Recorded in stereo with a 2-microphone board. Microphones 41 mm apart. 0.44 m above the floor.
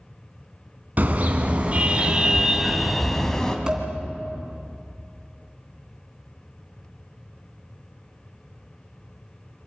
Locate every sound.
1.0 s a car horn: 45° right (ahead or behind), 2.5 m; by 3.6 s 15° left (ahead or behind), 1.9 m
3.7 s dishes clattering: 20° right (ahead or behind), 2.5 m